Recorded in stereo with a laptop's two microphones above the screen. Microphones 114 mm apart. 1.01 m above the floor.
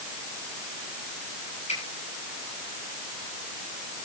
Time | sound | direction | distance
1.7 | a finger snap | 85° left | 10 m